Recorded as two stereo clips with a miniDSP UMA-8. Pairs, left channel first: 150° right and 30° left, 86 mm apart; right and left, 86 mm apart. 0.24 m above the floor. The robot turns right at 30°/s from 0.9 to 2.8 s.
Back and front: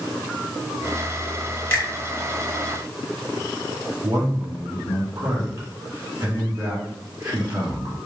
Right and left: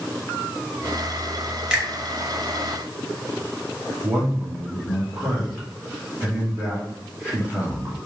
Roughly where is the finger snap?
Behind.